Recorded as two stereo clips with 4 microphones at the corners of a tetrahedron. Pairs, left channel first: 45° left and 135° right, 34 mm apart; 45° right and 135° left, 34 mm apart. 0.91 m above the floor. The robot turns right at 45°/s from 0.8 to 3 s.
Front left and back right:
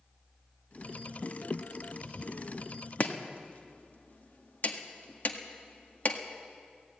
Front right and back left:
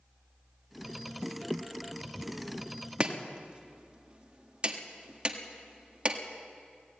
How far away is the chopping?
About 1.7 m.